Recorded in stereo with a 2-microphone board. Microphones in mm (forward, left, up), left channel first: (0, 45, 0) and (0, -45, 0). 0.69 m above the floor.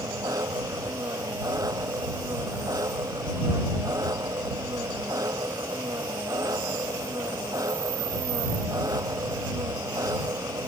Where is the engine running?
40° right (ahead or behind).